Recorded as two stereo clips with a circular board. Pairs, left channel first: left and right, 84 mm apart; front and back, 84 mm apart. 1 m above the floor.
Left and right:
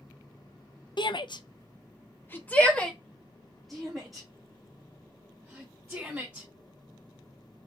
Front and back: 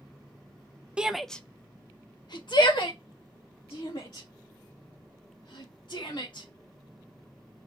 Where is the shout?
100° left, 0.5 m; by 6.5 s 10° right, 2.5 m.